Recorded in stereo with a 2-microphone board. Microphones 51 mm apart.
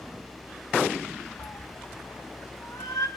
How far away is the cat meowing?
About 2.5 m.